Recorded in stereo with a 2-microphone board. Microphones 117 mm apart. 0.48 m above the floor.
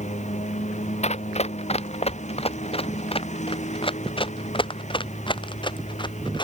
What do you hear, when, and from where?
0.0 s a lawn mower: 80° left
1.0 s running footsteps: 70° left (ahead or behind); by 6.5 s 40° left (ahead or behind)